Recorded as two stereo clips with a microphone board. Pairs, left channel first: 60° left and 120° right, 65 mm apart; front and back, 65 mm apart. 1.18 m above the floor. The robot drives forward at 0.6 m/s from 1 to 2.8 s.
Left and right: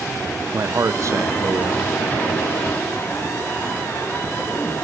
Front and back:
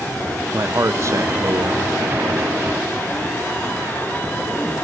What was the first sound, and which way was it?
A man speaking, 145° right.